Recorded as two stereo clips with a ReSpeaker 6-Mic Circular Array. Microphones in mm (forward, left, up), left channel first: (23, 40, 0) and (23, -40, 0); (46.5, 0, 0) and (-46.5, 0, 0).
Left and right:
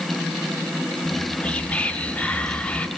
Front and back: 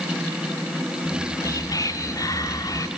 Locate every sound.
1.1 s whispering: 25° left, 1.8 m